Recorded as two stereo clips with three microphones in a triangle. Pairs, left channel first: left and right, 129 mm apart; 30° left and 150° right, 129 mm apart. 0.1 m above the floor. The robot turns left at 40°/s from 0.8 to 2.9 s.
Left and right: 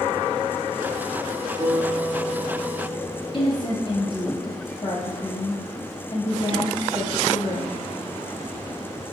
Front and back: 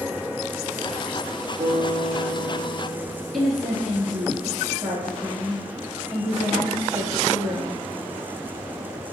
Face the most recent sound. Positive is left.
turn(degrees=120)